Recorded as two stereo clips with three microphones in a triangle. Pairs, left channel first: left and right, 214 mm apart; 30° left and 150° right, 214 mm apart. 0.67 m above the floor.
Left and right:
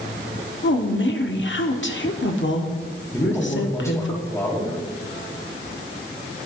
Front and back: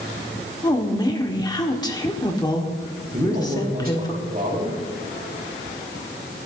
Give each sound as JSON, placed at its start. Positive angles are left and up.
{"t": 0.6, "sound": "a woman speaking", "azimuth_deg": 100, "distance_m": 1.5}
{"t": 3.1, "sound": "a man speaking", "azimuth_deg": 165, "distance_m": 3.5}